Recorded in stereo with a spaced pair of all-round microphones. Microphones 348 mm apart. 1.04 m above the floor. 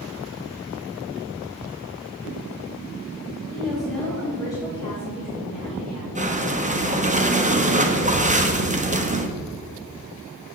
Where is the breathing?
20° right (ahead or behind), 1.0 m.